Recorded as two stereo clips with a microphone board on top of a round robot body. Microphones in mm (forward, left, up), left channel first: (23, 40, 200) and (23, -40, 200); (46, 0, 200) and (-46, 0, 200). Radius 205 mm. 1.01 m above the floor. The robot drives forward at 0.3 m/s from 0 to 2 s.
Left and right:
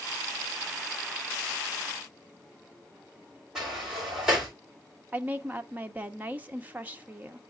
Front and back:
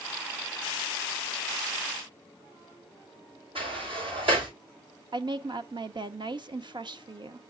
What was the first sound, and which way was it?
A sliding door, 170° right.